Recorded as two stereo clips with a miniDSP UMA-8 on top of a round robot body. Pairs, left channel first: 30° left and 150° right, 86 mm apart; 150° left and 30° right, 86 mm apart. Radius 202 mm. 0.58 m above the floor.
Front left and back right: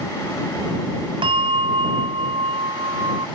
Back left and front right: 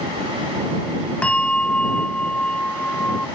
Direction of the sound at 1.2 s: 130° right.